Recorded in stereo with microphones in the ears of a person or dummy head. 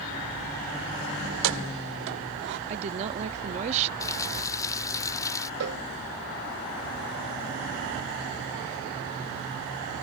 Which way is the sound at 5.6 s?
65° right (ahead or behind).